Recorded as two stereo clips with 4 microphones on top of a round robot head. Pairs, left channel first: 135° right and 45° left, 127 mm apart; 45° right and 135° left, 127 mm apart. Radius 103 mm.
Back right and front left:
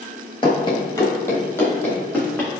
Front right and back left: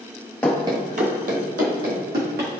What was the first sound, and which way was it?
Running footsteps, 115° right.